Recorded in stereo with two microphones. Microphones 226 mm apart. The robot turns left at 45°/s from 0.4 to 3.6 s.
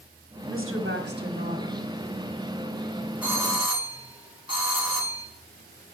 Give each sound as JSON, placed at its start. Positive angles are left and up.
{"t": 0.5, "sound": "a woman speaking", "azimuth_deg": -95, "distance_m": 1.7}
{"t": 3.2, "sound": "a doorbell", "side_deg": -5, "distance_m": 4.0}